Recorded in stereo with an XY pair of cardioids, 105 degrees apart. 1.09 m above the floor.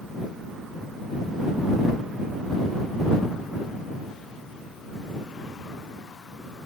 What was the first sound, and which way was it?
Only background noise.